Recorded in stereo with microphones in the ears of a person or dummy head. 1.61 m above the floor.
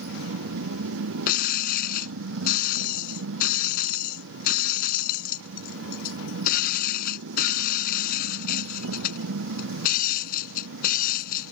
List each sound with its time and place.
0.0 s a motorcycle: 80° right
1.3 s breaking glass: 50° left (ahead or behind)